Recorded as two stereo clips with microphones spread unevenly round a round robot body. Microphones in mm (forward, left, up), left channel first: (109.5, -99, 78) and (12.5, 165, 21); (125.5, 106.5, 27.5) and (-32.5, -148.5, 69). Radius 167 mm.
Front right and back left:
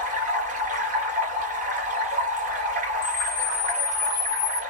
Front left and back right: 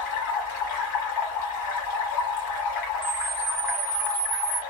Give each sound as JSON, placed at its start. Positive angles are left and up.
{"t": 0.0, "sound": "running water", "azimuth_deg": 45, "distance_m": 1.4}
{"t": 3.0, "sound": "a camera shutter", "azimuth_deg": -60, "distance_m": 1.1}